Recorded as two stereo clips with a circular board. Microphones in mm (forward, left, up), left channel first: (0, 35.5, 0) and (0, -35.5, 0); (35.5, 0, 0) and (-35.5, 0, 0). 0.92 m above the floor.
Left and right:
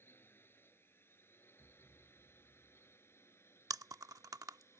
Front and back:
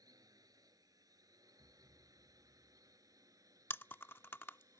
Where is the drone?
150° left; by 4.8 s 145° left.